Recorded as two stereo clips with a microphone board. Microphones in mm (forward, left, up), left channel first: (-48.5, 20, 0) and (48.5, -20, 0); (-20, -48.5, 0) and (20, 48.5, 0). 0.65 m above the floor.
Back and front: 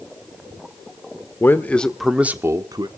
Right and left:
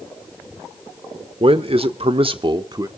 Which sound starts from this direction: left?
A man speaking, at 1.4 s.